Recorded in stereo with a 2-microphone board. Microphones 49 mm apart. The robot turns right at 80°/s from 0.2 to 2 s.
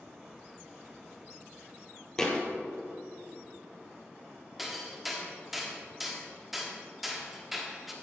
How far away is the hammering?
About 1.6 m.